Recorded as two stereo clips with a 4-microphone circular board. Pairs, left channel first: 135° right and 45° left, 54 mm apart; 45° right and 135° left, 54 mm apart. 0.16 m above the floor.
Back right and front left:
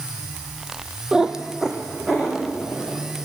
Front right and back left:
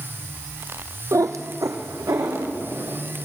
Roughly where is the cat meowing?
Behind left.